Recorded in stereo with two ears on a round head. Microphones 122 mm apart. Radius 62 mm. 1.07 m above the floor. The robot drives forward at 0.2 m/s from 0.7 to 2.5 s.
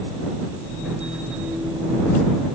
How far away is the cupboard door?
I don't hear a cupboard door.